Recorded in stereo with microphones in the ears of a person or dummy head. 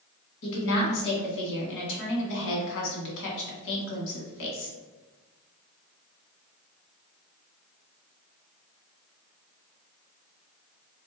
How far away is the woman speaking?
About 1.6 m.